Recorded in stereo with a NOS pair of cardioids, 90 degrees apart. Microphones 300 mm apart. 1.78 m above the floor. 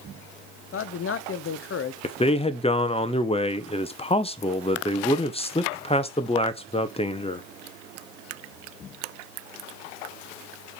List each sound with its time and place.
0.7 s a man speaking: 45° left, 1.0 m
2.0 s a man speaking: 20° left, 1.0 m